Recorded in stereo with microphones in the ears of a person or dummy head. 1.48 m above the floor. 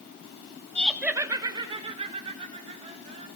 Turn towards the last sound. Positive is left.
turn(degrees=-35)  # may be behind; listen again after turning